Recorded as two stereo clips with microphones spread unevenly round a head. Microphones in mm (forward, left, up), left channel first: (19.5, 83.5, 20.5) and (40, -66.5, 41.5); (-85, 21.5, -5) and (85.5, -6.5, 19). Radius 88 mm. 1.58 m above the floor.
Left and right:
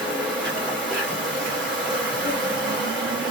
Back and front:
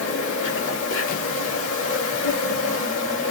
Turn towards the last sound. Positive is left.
turn(degrees=-170)